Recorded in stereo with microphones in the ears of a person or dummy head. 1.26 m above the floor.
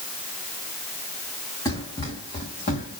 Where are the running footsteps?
25° left (ahead or behind), 2.5 m; by 3.0 s 50° left (ahead or behind), 2.5 m.